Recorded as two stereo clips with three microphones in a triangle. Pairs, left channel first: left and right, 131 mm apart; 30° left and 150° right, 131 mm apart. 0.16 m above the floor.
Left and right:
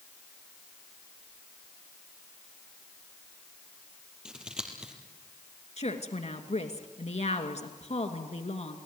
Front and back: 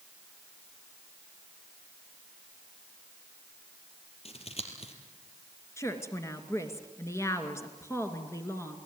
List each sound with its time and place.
4.2 s scissors: 5° right, 3.5 m
5.8 s a woman speaking: 95° left, 2 m